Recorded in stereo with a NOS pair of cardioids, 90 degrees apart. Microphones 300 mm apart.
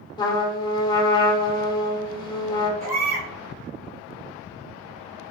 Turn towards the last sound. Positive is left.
turn(degrees=-55)